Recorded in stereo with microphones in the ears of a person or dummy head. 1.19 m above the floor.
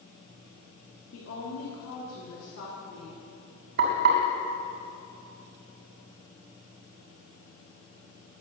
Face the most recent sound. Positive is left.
turn(degrees=-55)  # may be behind; listen again after turning